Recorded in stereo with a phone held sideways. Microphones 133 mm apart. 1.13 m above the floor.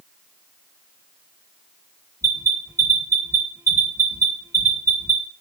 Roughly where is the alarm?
Right.